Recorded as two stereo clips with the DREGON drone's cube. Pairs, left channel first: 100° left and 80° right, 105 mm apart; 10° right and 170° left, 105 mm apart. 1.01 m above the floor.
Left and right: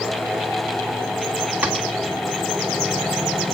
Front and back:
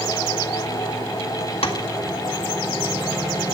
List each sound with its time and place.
1.6 s tapping: 5° right, 2.0 m